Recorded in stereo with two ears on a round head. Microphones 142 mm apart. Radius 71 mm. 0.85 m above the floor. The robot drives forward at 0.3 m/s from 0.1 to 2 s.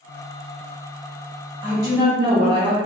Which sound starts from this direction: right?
A woman speaking, at 1.6 s.